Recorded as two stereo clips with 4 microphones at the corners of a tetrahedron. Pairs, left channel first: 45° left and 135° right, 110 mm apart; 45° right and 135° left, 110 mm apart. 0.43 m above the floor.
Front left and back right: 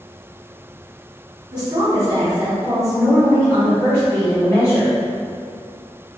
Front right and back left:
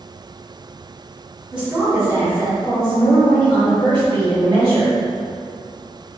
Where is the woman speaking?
150° right, 1.0 m; by 5.0 s 95° left, 1.7 m.